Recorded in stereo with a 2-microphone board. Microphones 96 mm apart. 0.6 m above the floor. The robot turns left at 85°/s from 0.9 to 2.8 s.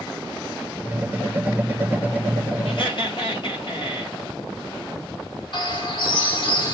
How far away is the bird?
About 2 m.